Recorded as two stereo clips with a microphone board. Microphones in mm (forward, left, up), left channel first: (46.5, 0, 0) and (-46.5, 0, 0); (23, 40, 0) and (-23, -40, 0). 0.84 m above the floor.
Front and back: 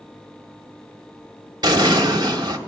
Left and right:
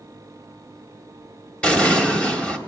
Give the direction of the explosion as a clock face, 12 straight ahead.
7 o'clock.